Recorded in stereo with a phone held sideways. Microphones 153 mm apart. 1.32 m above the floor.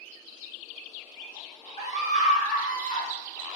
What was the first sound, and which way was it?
A scream, 50° left (ahead or behind).